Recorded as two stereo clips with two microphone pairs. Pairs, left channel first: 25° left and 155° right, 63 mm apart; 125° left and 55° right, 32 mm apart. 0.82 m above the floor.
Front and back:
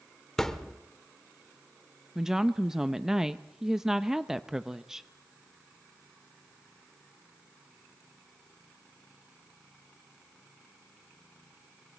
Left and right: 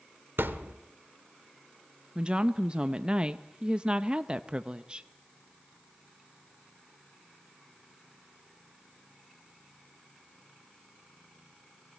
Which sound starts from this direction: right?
A woman speaking, at 2.1 s.